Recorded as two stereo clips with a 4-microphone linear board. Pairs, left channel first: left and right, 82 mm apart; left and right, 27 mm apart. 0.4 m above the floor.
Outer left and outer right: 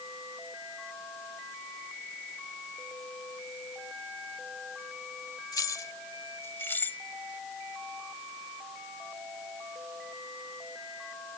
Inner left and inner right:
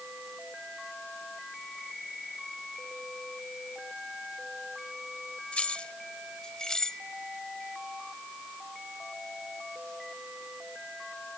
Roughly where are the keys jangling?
Left.